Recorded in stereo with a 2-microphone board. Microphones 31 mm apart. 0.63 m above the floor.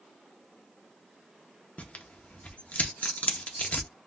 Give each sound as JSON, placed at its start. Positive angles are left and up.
{"t": 1.8, "sound": "tearing paper", "side_deg": 50, "distance_m": 0.6}